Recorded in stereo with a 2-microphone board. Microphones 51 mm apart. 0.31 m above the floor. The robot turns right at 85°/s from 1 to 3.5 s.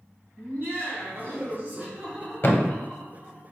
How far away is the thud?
About 0.6 m.